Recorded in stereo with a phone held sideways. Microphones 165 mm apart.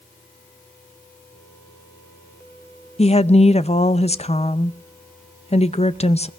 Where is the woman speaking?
40° left (ahead or behind), 0.6 m.